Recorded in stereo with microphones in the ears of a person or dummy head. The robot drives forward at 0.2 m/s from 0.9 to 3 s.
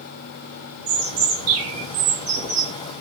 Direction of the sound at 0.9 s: 45° right (ahead or behind).